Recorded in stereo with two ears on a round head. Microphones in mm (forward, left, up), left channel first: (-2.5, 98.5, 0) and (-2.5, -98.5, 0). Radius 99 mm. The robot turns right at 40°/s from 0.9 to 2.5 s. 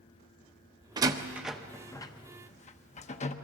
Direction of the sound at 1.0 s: 20° right (ahead or behind).